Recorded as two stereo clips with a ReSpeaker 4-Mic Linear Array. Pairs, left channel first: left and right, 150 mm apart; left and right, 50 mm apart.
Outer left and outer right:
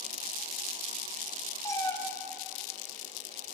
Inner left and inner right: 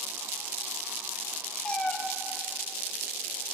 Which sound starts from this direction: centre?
A cat meowing, at 1.6 s.